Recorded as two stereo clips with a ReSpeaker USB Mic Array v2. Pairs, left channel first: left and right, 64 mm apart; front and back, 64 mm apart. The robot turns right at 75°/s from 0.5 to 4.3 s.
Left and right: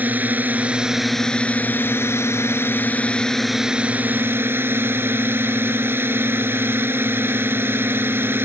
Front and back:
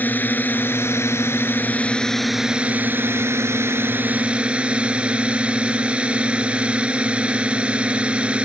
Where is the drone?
45° right; by 8.4 s 120° right.